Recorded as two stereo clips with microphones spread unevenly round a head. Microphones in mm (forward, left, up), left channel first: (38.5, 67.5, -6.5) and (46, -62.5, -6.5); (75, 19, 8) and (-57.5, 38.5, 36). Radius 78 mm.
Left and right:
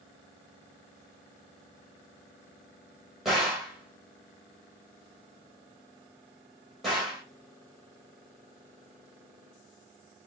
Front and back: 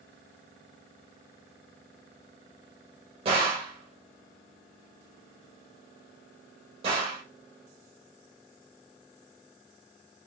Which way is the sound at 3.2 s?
175° right.